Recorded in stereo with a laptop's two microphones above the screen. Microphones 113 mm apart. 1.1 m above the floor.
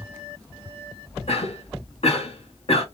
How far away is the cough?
About 1.7 m.